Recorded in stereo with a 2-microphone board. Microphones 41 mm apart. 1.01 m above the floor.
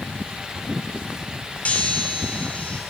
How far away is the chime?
About 2.5 m.